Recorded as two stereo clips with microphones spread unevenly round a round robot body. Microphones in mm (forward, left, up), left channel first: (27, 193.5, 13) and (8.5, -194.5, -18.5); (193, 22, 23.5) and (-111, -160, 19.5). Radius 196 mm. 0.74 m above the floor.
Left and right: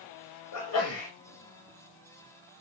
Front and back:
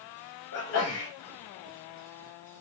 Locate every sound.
0.5 s a sneeze: 60° left, 0.8 m